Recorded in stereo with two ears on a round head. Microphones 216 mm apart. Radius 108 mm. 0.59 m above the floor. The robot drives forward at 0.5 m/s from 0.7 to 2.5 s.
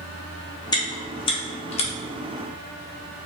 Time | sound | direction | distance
0.7 | chewing | 15° left (ahead or behind) | 0.8 m